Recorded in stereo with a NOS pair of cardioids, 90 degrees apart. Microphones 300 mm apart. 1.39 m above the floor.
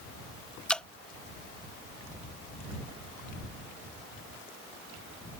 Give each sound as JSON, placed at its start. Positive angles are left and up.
{"t": 0.7, "sound": "dripping", "azimuth_deg": 5}